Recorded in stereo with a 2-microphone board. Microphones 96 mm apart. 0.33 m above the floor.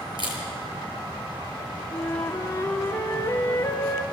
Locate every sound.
0.2 s a camera shutter: 55° right (ahead or behind), 7.5 m
1.9 s a flute: 25° left (ahead or behind), 2.5 m